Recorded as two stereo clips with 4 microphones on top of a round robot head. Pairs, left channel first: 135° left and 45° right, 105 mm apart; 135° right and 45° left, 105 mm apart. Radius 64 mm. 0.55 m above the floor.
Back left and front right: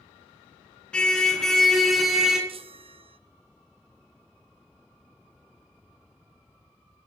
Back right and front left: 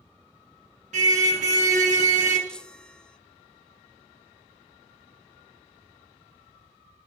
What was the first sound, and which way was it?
A car horn, 55° left.